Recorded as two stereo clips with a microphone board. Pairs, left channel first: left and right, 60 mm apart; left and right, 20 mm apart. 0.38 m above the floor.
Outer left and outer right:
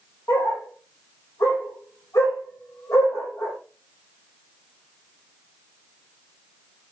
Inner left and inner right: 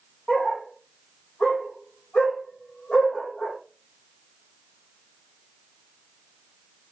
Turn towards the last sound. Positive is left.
turn(degrees=55)  # may be behind; listen again after turning